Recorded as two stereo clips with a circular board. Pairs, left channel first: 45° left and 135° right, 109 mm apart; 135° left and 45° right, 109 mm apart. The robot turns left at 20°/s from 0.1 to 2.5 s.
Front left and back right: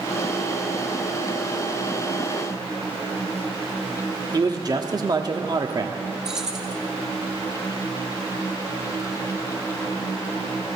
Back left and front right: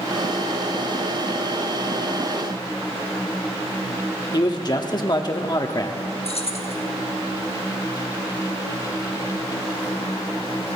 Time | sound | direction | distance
4.3 | a man speaking | straight behind | 1.0 m
6.2 | keys jangling | 140° left | 0.9 m